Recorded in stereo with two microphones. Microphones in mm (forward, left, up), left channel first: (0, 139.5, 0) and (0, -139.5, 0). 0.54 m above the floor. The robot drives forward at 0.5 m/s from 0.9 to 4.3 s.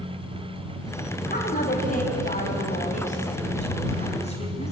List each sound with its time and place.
1.3 s a woman speaking: 30° left (ahead or behind), 3.5 m; by 4.7 s 25° left (ahead or behind), 5 m